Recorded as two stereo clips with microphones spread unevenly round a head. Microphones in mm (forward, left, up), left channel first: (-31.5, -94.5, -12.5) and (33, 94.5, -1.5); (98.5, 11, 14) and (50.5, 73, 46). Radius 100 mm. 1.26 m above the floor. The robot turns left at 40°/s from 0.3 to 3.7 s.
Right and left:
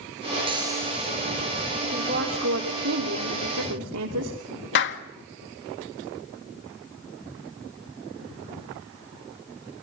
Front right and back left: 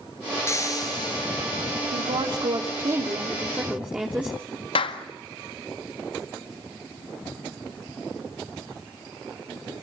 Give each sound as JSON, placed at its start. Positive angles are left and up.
{"t": 0.5, "sound": "frying", "azimuth_deg": 5, "distance_m": 9.5}
{"t": 1.8, "sound": "a woman speaking", "azimuth_deg": 130, "distance_m": 3.0}
{"t": 4.8, "sound": "a clap", "azimuth_deg": -75, "distance_m": 1.7}